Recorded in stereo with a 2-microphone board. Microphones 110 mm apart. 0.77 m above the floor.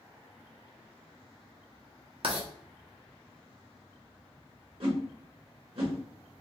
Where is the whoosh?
60° right (ahead or behind), 1.2 m.